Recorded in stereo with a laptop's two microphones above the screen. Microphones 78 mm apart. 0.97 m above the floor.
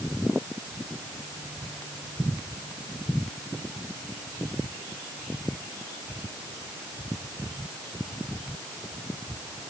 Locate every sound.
Only background noise.